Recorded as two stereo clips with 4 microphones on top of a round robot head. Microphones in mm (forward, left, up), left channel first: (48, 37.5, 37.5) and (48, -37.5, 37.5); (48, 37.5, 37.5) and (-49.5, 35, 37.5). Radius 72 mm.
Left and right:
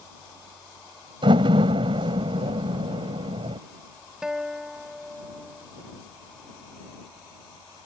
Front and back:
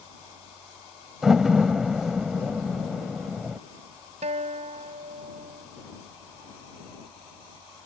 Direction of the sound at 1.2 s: 90° right.